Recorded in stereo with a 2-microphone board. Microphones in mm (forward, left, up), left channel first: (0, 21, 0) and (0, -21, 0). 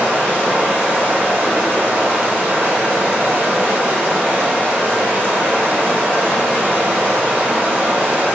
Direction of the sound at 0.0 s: 60° right (ahead or behind).